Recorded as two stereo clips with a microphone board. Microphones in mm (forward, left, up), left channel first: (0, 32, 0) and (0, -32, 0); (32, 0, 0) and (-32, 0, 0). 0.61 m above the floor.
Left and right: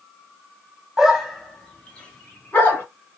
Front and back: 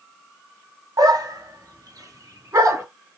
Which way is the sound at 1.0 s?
175° right.